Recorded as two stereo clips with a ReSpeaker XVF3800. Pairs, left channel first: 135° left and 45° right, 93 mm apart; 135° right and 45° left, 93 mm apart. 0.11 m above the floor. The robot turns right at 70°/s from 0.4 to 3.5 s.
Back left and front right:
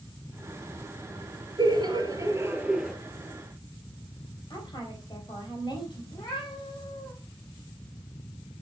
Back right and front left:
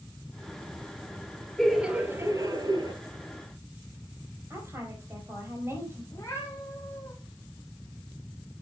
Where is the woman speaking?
105° left, 4.5 m.